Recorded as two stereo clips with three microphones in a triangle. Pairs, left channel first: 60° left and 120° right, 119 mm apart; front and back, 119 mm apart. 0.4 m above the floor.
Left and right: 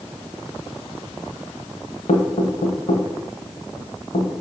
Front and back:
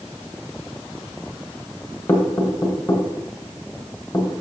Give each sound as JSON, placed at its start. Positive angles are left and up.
{"t": 2.1, "sound": "knocking", "azimuth_deg": 70, "distance_m": 1.3}